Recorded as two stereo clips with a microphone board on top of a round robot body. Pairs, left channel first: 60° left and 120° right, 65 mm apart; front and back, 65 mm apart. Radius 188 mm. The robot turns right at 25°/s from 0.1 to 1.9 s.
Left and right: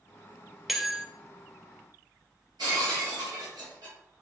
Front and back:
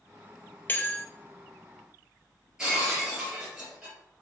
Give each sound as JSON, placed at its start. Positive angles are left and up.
{"t": 0.7, "sound": "a bell", "azimuth_deg": -35, "distance_m": 0.9}
{"t": 2.6, "sound": "breaking glass", "azimuth_deg": -100, "distance_m": 2.0}